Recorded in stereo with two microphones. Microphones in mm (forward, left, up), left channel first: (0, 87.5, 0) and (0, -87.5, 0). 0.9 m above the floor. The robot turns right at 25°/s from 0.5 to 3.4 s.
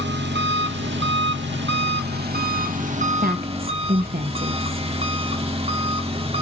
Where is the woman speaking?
55° right (ahead or behind), 1.0 m.